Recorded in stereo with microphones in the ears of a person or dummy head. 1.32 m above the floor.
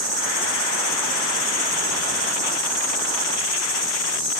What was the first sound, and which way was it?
An insect, 20° left (ahead or behind).